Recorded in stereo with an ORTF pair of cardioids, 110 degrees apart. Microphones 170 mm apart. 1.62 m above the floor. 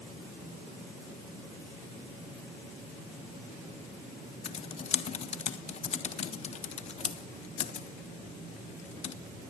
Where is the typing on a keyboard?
40° left, 1.4 m.